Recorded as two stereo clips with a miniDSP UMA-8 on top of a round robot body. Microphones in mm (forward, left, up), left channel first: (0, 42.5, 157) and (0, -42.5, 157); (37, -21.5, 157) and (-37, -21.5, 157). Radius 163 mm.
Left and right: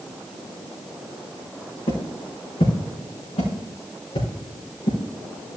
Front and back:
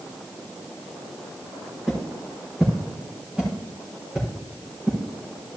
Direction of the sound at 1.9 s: 90° left.